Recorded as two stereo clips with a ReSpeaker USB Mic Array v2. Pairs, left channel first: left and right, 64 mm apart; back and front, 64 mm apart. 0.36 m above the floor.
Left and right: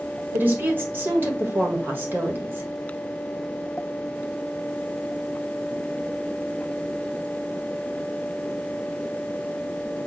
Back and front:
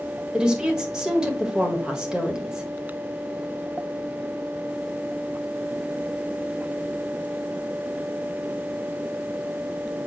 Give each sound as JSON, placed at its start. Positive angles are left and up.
{"t": 0.3, "sound": "a woman speaking", "azimuth_deg": -70, "distance_m": 1.3}